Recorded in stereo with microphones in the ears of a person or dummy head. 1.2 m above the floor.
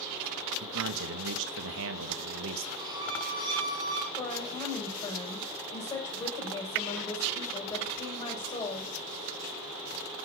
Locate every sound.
0.6 s a man speaking: 80° right, 1.0 m
2.8 s a violin: 25° right (ahead or behind), 2 m
4.2 s a woman speaking: 25° left (ahead or behind), 7 m